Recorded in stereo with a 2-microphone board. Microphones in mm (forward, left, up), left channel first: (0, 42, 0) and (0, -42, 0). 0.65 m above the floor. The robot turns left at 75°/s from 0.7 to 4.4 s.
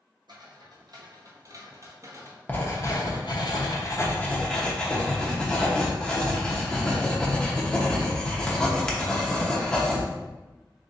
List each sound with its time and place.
0.3 s footsteps: 65° right (ahead or behind), 1.5 m; by 2.4 s 40° right (ahead or behind), 0.9 m
2.5 s writing: 155° left, 0.8 m; by 10.1 s 10° left, 0.8 m